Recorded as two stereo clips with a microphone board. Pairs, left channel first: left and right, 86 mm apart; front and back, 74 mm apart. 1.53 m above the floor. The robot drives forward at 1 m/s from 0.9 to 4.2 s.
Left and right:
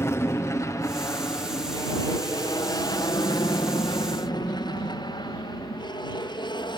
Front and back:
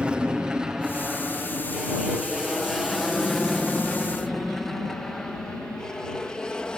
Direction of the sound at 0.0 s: 115° left.